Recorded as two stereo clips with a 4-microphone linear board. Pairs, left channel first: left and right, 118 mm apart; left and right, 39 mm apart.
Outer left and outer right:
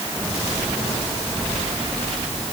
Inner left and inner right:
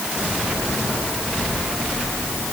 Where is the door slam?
No door slam in this recording.